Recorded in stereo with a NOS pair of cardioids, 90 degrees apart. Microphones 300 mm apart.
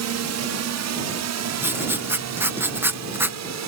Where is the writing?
5° right.